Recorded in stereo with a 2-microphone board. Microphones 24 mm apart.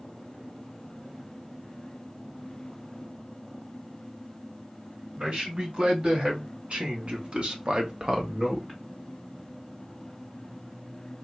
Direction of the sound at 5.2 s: 45° right (ahead or behind).